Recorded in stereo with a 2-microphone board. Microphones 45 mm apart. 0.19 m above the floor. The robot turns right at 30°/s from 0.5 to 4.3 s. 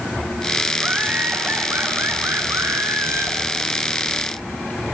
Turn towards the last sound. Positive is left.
turn(degrees=-40)